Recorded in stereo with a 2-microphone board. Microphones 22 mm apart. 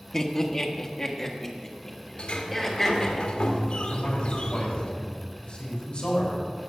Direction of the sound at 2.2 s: 60° left (ahead or behind).